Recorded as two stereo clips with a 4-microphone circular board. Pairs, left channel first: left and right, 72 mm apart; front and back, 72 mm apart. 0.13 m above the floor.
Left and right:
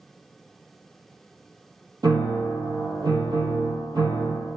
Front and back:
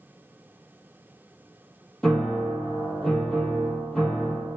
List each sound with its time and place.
2.0 s a piano: 80° right, 0.8 m